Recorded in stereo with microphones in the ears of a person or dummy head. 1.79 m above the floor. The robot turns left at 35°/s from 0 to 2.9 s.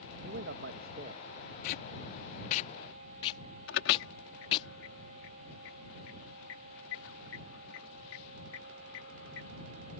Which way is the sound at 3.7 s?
85° left.